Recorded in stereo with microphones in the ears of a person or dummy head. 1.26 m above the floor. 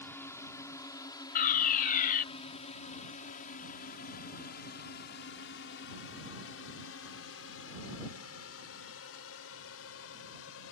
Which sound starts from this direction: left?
A fire alarm, at 1.4 s.